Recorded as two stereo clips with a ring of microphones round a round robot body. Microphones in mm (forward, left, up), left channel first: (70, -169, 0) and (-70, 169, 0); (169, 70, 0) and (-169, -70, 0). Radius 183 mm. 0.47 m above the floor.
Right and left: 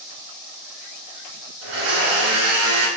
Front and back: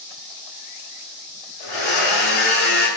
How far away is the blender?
About 1.4 m.